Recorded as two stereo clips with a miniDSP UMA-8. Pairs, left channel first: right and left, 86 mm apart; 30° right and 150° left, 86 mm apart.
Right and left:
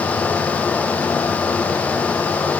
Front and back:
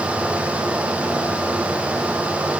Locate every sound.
Only background noise.